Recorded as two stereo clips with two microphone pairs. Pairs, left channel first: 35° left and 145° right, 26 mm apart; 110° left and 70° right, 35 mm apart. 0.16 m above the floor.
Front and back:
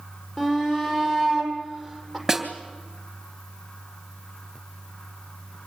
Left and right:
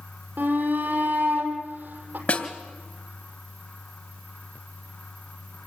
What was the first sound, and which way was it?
A shout, 45° right.